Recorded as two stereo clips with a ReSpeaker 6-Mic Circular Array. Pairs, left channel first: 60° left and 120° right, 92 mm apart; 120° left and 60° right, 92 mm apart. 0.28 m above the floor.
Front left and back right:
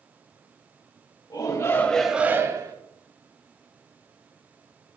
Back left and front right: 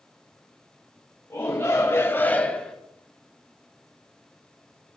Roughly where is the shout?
Left.